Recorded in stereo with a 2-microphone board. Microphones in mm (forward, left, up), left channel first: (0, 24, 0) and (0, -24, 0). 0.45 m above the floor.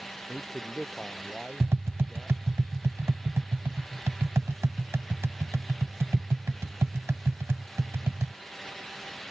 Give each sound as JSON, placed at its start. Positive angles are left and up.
{"t": 0.3, "sound": "a man speaking", "side_deg": 5}
{"t": 1.6, "sound": "tapping", "side_deg": -75}